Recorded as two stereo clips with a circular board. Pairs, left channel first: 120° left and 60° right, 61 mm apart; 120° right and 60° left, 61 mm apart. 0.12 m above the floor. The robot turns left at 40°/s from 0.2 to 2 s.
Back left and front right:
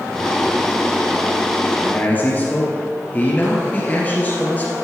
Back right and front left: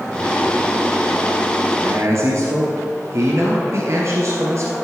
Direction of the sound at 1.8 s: 70° left.